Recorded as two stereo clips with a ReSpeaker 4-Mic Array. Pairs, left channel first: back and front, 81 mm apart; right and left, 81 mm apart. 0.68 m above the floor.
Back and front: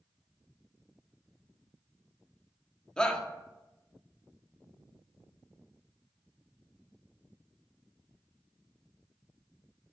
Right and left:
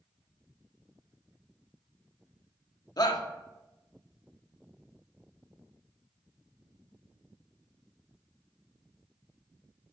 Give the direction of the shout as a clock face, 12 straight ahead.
3 o'clock.